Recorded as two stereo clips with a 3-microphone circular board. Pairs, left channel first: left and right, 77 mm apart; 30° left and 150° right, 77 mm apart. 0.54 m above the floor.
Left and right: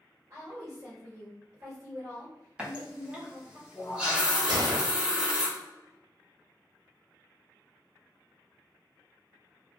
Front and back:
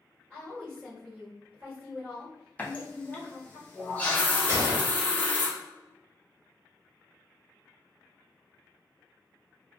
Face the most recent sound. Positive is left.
turn(degrees=-105)